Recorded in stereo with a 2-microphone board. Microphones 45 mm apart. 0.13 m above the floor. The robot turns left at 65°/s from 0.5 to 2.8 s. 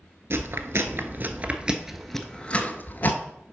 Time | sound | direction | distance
0.3 | chewing | 60° right (ahead or behind) | 0.8 m